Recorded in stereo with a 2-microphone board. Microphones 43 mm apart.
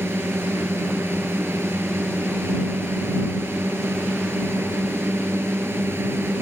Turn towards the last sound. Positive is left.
turn(degrees=-70)  # may be behind; listen again after turning